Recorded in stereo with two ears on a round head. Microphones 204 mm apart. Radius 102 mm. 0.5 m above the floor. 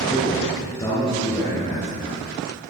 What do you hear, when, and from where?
0.1 s a man speaking: 20° left (ahead or behind), 9.5 m